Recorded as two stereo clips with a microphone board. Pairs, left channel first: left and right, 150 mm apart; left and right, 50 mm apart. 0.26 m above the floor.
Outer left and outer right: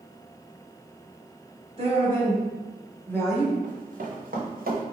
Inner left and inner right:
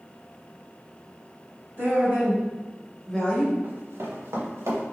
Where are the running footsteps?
55° right (ahead or behind), 1.6 m; by 4.8 s 80° right, 2 m.